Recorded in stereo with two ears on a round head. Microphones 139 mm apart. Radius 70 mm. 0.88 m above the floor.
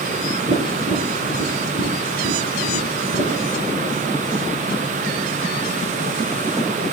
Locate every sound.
0.5 s tapping: 50° right (ahead or behind), 6.5 m